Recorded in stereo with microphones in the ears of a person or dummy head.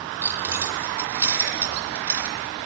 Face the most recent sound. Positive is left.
turn(degrees=-10)  # may be behind; listen again after turning